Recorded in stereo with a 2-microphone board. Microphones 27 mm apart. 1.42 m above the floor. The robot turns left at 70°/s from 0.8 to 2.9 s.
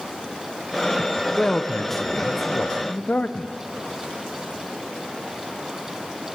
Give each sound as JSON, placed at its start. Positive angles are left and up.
{"t": 1.4, "sound": "a man speaking", "azimuth_deg": 160, "distance_m": 0.6}